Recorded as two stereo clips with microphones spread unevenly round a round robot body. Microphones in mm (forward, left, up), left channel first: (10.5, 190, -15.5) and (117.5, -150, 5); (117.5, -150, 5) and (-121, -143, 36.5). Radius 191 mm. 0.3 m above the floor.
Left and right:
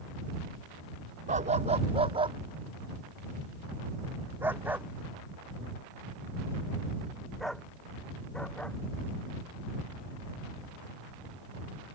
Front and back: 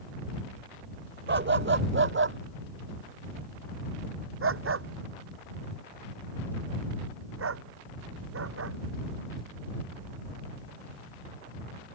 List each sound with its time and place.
1.3 s a dog barking: 145° right; by 8.8 s 165° right